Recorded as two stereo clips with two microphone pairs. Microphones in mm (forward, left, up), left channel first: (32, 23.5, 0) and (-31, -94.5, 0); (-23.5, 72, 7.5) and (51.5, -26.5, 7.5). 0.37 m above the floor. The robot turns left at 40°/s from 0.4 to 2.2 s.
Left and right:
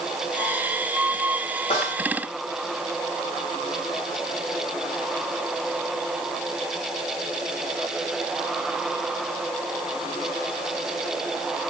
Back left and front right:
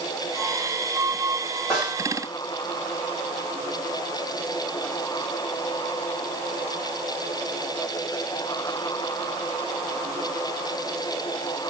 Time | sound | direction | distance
1.7 | a snare drum | 40° left | 2.5 m